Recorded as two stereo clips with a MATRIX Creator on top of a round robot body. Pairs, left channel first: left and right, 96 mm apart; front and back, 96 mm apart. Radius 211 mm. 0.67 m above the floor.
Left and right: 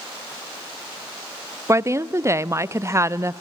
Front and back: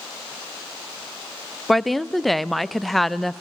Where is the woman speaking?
90° right, 0.5 m.